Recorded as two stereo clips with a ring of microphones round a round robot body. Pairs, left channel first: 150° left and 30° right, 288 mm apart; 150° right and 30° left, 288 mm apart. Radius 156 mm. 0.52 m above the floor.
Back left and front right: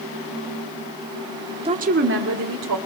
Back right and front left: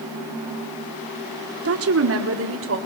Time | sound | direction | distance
1.6 | a woman speaking | 35° left | 1.4 m